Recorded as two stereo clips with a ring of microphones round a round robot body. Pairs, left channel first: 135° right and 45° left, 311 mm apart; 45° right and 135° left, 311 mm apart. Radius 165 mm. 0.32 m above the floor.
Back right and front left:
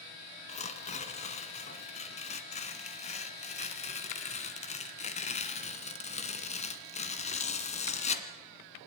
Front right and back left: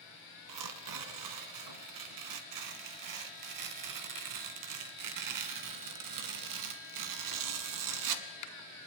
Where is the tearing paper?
155° left, 1.8 m.